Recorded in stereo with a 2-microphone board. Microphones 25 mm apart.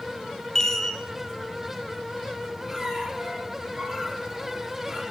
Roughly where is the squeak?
Right.